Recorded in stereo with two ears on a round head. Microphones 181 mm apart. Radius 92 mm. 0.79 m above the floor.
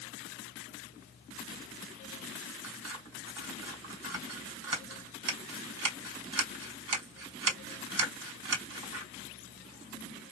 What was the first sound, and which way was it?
Scissors, 70° right (ahead or behind).